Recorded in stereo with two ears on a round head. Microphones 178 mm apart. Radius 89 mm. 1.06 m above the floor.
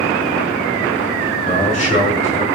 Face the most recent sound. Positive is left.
turn(degrees=35)  # may be behind; listen again after turning